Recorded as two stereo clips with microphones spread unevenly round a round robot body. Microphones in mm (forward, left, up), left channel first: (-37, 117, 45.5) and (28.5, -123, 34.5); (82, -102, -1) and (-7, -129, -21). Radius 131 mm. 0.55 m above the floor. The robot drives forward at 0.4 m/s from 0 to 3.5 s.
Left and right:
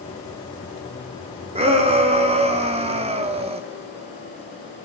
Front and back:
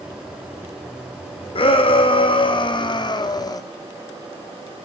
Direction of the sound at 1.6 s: 10° right.